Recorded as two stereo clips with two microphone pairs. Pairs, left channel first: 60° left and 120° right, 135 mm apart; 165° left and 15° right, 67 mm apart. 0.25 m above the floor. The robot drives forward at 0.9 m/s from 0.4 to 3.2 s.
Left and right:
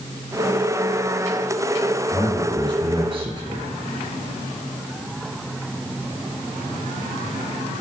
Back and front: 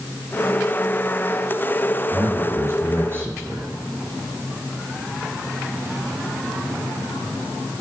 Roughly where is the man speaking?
Ahead right.